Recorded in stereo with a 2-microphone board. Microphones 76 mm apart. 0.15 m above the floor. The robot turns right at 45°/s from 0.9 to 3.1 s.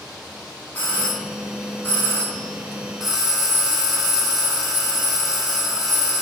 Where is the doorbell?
20° left (ahead or behind), 1.5 m; by 6.2 s centre (ahead or behind), 1.5 m.